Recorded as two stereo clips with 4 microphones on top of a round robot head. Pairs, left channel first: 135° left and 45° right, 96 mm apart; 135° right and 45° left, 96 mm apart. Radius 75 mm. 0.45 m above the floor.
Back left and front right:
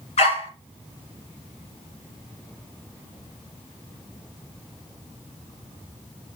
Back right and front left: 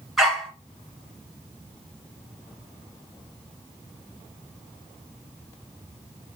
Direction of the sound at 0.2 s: 130° left.